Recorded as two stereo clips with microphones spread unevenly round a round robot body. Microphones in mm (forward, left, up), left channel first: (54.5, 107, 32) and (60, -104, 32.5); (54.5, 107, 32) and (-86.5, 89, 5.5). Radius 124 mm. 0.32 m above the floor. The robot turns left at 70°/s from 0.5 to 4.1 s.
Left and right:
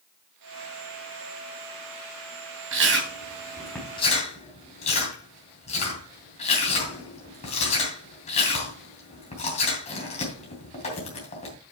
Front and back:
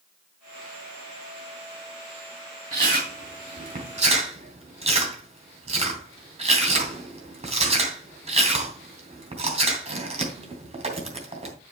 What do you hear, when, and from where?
2.7 s chewing: 110° right, 3 m; by 11.6 s 155° left, 3 m